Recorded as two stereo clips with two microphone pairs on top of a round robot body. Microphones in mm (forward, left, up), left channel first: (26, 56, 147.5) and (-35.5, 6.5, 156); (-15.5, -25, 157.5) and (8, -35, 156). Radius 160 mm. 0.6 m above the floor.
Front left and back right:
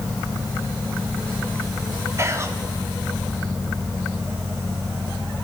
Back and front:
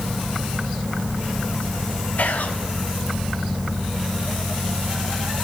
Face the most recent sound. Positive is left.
turn(degrees=165)